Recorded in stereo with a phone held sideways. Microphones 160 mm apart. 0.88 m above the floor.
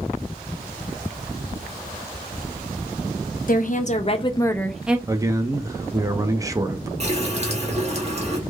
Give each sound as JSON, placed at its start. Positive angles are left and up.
{"t": 3.5, "sound": "a woman speaking", "side_deg": 60, "distance_m": 0.8}
{"t": 5.1, "sound": "a man speaking", "side_deg": -20, "distance_m": 0.5}
{"t": 7.0, "sound": "a running tap", "side_deg": -45, "distance_m": 1.0}